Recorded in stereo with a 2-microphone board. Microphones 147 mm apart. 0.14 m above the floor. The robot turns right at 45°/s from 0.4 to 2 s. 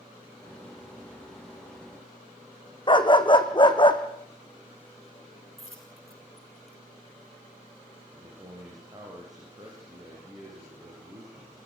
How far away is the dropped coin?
About 4.5 m.